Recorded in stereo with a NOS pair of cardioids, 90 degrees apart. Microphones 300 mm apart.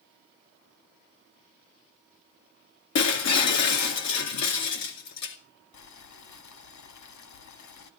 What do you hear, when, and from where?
3.0 s breaking glass: 65° left, 2.5 m
5.7 s boiling: 70° left, 2 m